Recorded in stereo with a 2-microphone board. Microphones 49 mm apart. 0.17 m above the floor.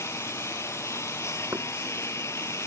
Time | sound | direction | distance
0.0 | a lawn mower | 65° left (ahead or behind) | ?
1.5 | knocking | 75° right (ahead or behind) | ?